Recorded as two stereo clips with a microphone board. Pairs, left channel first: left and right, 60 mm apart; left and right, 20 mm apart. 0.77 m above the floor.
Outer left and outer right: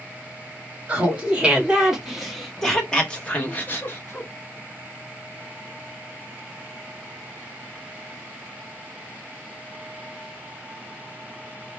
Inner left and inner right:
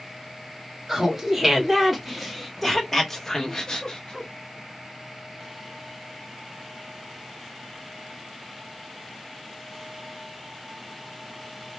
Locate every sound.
0.9 s laughter: 20° right (ahead or behind), 1.6 m; by 4.3 s 40° left (ahead or behind), 1.2 m